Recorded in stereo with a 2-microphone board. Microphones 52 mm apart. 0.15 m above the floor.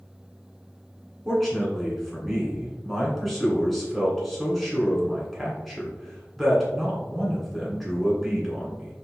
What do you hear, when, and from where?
1.2 s a man speaking: 5° left (ahead or behind), 1.8 m